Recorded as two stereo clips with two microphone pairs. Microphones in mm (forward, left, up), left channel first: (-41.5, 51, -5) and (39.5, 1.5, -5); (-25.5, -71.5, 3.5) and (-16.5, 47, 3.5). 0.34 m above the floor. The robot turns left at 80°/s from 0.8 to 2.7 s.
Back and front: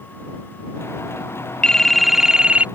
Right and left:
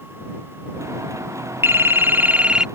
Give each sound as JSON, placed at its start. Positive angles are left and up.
{"t": 1.6, "sound": "a phone ringing", "azimuth_deg": 95}